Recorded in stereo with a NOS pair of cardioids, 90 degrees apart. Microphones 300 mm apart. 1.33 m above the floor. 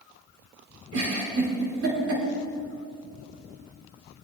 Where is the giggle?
50° right, 6 m.